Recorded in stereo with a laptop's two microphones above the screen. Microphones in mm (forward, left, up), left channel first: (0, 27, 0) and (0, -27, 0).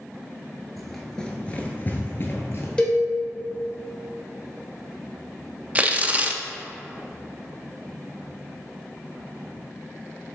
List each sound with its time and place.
0.8 s running footsteps: centre (ahead or behind), 1.2 m; by 2.7 s 50° left (ahead or behind), 1.3 m
2.8 s a cowbell: 15° left (ahead or behind), 1.1 m
5.8 s tearing paper: 25° right (ahead or behind), 0.5 m